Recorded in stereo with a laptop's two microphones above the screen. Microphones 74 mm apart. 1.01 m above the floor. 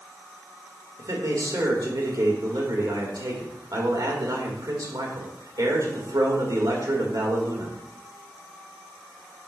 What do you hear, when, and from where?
1.0 s a man speaking: 65° right (ahead or behind), 1.7 m